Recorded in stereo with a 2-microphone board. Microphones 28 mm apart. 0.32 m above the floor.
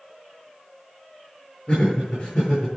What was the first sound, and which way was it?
Laughter, 40° left (ahead or behind).